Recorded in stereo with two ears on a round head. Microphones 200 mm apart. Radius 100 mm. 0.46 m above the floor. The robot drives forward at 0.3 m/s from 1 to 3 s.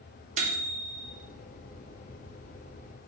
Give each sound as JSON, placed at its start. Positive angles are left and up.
{"t": 0.4, "sound": "a microwave", "side_deg": -35, "distance_m": 0.6}